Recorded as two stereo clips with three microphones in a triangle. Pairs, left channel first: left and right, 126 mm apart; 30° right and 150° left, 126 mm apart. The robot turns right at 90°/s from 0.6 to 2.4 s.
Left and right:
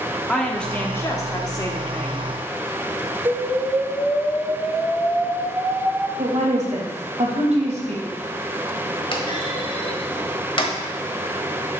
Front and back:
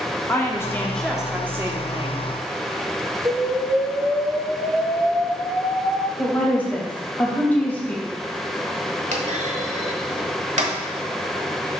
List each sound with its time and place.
0.3 s a woman speaking: 15° left, 1.2 m; by 2.3 s 165° left, 1.2 m
3.2 s an explosion: 160° right, 3 m
6.2 s a woman speaking: 105° right, 2.5 m
9.1 s a clunk: 135° left, 1.1 m